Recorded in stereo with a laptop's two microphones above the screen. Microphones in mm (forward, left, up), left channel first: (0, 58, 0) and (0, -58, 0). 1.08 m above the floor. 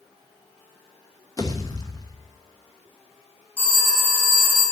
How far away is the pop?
About 1.0 m.